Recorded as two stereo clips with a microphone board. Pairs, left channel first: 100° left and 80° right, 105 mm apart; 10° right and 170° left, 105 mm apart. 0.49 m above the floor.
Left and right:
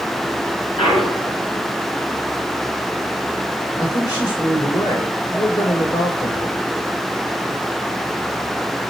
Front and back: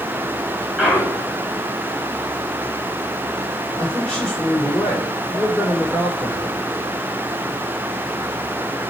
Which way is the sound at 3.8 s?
70° left.